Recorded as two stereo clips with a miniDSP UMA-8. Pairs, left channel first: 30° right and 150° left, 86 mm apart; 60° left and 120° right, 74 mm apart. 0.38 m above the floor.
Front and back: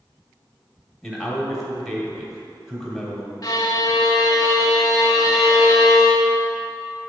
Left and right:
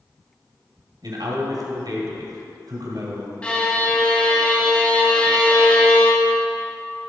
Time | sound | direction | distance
1.0 | a man speaking | 120° right | 2 m
3.4 | a violin | 5° right | 1.1 m